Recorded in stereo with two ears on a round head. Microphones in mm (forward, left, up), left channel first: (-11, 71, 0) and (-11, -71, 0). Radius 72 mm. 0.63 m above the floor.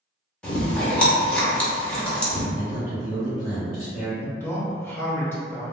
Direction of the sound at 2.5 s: 55° left (ahead or behind).